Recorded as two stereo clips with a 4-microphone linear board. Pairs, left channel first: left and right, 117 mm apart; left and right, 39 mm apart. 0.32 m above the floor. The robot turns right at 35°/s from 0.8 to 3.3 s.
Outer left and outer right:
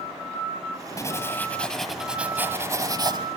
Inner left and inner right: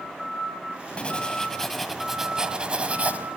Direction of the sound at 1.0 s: 150° left.